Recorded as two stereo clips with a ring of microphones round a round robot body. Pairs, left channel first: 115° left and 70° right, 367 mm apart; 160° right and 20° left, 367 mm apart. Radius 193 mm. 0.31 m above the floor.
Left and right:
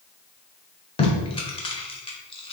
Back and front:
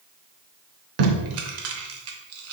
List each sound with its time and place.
1.0 s tape being pulled: 45° left, 0.7 m